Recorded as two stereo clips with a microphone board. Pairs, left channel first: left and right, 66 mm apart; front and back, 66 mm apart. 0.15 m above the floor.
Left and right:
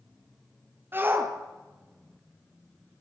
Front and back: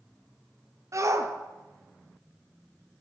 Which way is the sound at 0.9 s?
145° right.